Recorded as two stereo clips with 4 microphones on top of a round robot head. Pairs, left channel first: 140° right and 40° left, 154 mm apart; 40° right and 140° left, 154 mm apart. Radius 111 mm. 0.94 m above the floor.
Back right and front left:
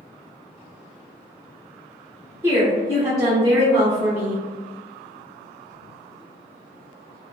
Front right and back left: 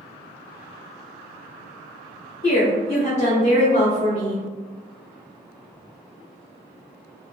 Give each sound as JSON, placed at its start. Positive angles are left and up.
{"t": 2.4, "sound": "a woman speaking", "azimuth_deg": -20, "distance_m": 1.1}